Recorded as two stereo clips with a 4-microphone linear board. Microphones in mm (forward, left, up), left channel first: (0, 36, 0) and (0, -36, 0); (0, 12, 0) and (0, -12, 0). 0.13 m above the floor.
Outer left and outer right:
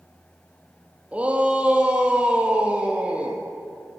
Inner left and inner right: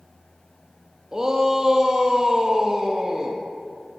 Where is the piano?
No piano in this recording.